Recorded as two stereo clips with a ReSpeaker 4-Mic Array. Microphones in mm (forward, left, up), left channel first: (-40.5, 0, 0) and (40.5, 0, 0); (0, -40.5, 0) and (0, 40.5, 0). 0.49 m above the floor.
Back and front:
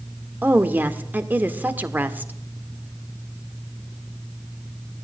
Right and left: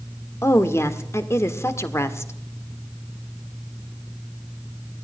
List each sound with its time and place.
0.4 s a woman speaking: 55° right, 1.6 m